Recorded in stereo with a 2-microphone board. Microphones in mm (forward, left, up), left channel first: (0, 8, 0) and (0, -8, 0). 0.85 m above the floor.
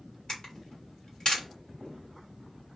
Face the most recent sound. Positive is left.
turn(degrees=50)  # may be behind; listen again after turning